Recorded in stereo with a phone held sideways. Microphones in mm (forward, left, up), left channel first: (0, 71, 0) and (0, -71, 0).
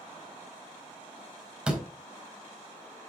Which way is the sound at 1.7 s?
10° right (ahead or behind).